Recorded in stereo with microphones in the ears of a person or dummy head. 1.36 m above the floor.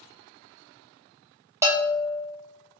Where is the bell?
10° right (ahead or behind), 0.6 m.